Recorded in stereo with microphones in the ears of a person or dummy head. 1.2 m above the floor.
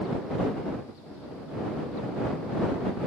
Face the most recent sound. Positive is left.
No sound to turn to.